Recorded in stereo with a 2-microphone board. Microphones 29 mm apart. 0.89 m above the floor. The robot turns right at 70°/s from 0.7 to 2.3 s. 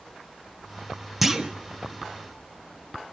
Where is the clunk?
5° right (ahead or behind), 1.3 m; by 1.5 s 25° right (ahead or behind), 1.3 m.